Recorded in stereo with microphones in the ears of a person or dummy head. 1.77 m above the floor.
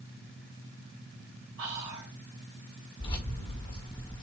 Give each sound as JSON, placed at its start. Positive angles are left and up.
{"t": 1.6, "sound": "whispering", "side_deg": -65, "distance_m": 2.0}
{"t": 3.0, "sound": "keys jangling", "side_deg": 30, "distance_m": 1.3}